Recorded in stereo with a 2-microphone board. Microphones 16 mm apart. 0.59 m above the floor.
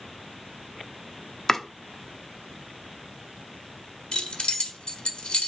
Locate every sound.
1.5 s chopping: 20° left (ahead or behind), 0.8 m
4.1 s keys jangling: 70° left (ahead or behind), 1.2 m